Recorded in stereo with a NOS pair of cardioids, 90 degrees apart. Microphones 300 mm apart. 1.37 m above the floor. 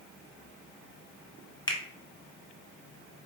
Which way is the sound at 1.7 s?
15° left.